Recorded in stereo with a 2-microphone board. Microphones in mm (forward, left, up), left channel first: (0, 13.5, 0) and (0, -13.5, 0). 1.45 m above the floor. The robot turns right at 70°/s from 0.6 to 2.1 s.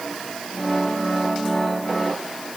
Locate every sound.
Only background noise.